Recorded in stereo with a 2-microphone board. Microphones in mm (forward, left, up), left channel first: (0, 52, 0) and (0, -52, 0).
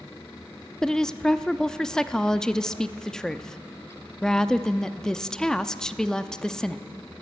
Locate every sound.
0.8 s a woman speaking: 5° left (ahead or behind), 0.6 m